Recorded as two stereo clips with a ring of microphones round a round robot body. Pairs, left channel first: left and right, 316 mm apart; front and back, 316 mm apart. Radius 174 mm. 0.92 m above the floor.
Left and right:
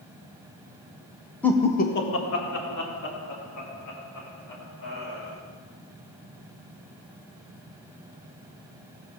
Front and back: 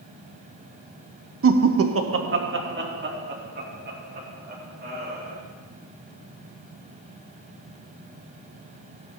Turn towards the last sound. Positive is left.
turn(degrees=120)